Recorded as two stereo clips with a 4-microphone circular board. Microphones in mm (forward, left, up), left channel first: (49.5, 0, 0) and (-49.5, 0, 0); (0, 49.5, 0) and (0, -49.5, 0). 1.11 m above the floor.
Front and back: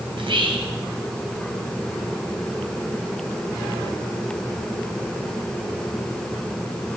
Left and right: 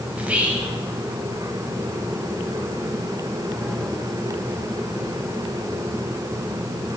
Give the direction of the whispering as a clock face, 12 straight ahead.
6 o'clock.